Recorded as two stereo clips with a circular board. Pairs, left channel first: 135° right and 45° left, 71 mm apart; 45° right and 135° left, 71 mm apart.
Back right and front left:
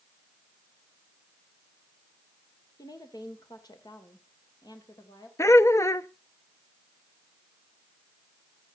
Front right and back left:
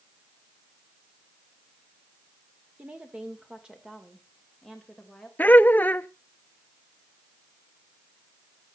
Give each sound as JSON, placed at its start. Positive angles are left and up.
{"t": 2.8, "sound": "a woman speaking", "azimuth_deg": -155, "distance_m": 2.5}
{"t": 5.4, "sound": "laughter", "azimuth_deg": -105, "distance_m": 0.5}